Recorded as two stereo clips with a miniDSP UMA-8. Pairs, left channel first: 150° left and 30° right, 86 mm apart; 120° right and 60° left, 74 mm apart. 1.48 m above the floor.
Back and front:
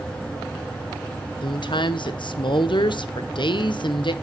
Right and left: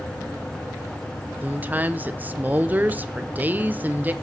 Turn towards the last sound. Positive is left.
turn(degrees=125)